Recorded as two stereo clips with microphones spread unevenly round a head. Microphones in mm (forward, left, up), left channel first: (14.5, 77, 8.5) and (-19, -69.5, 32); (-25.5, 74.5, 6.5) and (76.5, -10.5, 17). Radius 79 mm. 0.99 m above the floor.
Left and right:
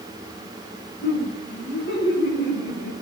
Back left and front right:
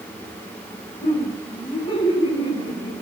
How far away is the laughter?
About 8.5 m.